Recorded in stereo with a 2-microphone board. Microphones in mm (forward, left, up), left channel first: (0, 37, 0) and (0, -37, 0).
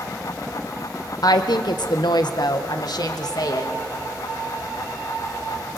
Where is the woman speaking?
60° left (ahead or behind), 0.9 m; by 3.7 s 55° left (ahead or behind), 2.5 m.